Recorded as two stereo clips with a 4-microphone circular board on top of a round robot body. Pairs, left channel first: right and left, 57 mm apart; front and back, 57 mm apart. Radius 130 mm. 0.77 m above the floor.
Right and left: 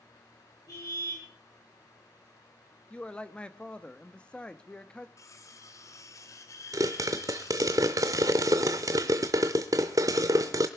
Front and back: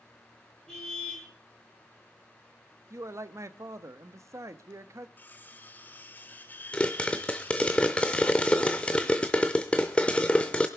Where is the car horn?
80° right, 9 m.